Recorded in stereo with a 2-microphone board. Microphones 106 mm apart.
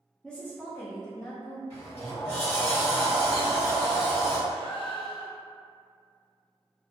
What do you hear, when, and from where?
0.2 s a woman speaking: 5° left (ahead or behind), 0.5 m; by 1.6 s 40° left (ahead or behind), 1.1 m
1.7 s a sliding door: 70° left (ahead or behind), 1.2 m
4.5 s a gasp: 50° left (ahead or behind), 0.6 m